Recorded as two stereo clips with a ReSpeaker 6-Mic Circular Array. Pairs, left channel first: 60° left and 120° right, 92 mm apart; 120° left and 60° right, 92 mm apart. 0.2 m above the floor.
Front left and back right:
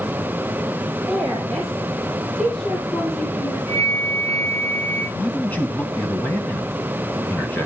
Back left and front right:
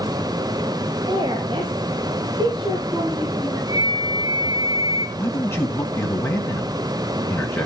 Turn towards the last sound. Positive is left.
turn(degrees=100)